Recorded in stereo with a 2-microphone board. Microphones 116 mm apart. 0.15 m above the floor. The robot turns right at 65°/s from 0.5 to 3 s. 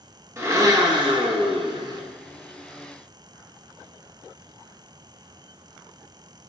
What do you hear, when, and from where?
0.4 s a blender: 145° right, 0.7 m; by 2.0 s 45° right, 0.7 m